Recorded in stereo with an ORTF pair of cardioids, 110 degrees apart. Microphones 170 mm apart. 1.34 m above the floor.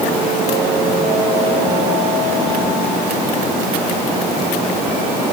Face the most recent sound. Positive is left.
No sound to turn to.